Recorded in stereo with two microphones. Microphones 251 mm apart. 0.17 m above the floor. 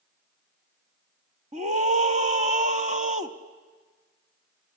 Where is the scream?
30° right (ahead or behind), 1.1 m.